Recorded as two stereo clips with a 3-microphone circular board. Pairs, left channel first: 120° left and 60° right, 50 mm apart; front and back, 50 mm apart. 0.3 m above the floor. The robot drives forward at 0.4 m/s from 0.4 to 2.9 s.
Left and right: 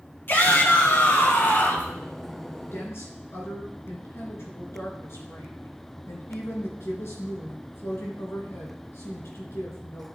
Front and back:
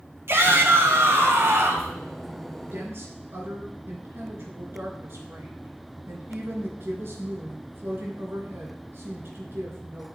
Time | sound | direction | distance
0.3 | a shout | 160° left | 3 m
2.7 | a woman speaking | 145° left | 3.5 m